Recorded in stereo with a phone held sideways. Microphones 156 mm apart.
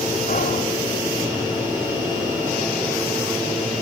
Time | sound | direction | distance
0.3 | whispering | 65° left (ahead or behind) | 2.5 m